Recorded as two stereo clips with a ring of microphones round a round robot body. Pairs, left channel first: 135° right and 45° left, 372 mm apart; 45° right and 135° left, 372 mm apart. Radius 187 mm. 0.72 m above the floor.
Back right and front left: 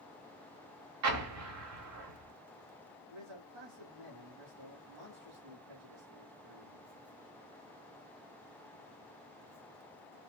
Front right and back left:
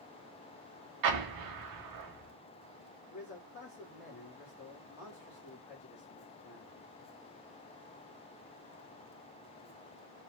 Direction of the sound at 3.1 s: 15° left.